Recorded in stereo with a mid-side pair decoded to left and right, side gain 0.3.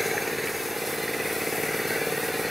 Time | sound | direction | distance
0.0 | an engine running | 10° left | ?